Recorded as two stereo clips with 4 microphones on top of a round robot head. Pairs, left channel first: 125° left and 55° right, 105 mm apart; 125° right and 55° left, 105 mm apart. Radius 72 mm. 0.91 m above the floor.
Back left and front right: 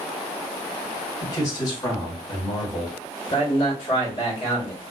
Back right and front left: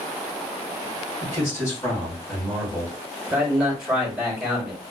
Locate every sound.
1.2 s a man speaking: straight behind, 1.6 m
3.3 s a man speaking: 135° left, 1.6 m